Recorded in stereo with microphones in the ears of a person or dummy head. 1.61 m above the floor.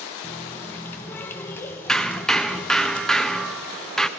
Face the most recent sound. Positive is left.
turn(degrees=5)  # may be behind; listen again after turning